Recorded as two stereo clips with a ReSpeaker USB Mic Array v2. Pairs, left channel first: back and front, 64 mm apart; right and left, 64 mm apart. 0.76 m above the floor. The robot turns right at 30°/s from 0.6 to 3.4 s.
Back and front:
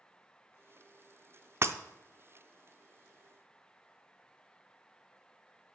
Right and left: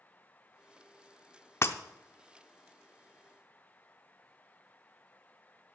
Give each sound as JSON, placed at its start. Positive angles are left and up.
{"t": 1.6, "sound": "breaking glass", "azimuth_deg": -45, "distance_m": 0.6}